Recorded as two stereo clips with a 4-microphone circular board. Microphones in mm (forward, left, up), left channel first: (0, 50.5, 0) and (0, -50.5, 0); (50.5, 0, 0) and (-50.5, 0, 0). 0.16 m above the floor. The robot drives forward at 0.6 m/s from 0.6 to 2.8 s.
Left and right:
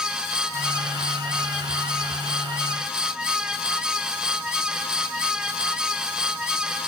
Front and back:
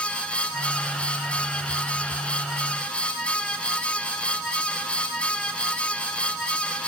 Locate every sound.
Only background noise.